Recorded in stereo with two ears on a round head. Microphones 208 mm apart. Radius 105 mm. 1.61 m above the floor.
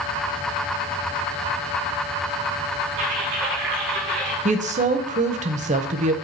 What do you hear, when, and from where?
3.0 s typing on a keyboard: 55° right (ahead or behind), 4.5 m
4.5 s a woman speaking: 35° right (ahead or behind), 1.0 m